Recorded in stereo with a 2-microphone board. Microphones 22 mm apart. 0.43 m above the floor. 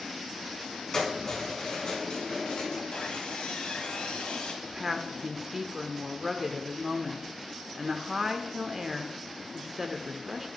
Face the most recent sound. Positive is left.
turn(degrees=-15)  # may be behind; listen again after turning